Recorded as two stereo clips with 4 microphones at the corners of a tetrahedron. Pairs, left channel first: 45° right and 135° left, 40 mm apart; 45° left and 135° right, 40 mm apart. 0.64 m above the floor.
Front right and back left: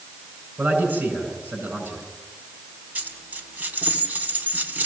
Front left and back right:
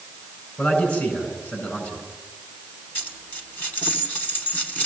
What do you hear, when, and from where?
0.6 s a man speaking: 85° left, 8 m
3.0 s a dropped coin: 85° left, 2.0 m